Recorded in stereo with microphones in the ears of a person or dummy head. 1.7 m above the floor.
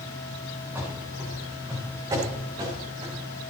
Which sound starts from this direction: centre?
Running footsteps, at 0.8 s.